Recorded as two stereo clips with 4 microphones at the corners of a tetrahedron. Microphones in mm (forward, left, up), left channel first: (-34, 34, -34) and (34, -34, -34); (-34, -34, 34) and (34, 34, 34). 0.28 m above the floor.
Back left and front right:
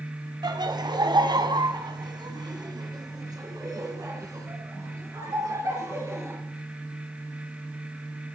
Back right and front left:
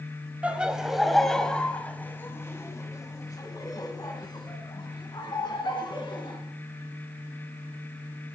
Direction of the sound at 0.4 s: 25° right.